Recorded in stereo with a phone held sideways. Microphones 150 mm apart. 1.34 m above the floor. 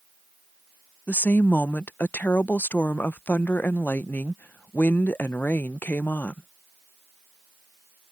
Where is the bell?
No bell in this recording.